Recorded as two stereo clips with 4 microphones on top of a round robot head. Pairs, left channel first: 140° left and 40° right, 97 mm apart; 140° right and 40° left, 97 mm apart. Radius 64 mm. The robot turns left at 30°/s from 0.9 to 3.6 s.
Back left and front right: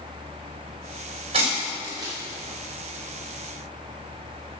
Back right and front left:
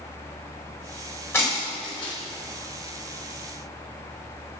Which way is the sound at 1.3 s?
75° right.